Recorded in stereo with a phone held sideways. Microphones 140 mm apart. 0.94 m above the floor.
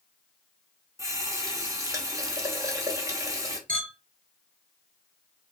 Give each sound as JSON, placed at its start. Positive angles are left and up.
{"t": 1.0, "sound": "a running tap", "side_deg": -25, "distance_m": 0.8}
{"t": 3.7, "sound": "a clink", "side_deg": -80, "distance_m": 2.0}